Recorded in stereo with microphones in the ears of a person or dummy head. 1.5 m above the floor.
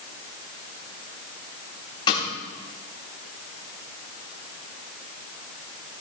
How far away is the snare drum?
About 3 m.